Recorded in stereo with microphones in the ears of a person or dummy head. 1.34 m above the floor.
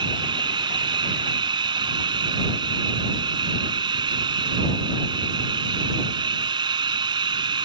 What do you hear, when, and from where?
0.0 s running water: 30° right (ahead or behind)